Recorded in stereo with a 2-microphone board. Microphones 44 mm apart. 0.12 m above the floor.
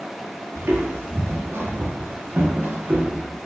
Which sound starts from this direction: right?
Footsteps, at 0.6 s.